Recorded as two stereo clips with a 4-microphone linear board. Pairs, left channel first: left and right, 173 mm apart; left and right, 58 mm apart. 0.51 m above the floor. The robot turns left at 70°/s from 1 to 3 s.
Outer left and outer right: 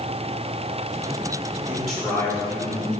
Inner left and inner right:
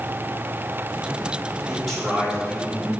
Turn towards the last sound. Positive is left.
turn(degrees=100)